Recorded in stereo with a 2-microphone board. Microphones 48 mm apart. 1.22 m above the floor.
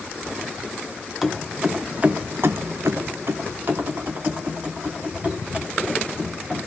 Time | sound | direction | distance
1.2 | keys jangling | 5° right (ahead or behind) | 1.1 m